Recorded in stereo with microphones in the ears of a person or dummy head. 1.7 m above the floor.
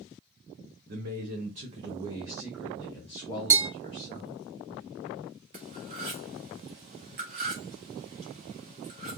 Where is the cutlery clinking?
25° right (ahead or behind), 1.0 m.